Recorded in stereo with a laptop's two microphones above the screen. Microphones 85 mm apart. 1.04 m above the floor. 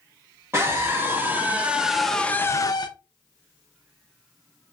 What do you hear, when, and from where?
0.5 s a scream: 35° right (ahead or behind), 1.6 m; by 2.9 s 60° left (ahead or behind), 0.6 m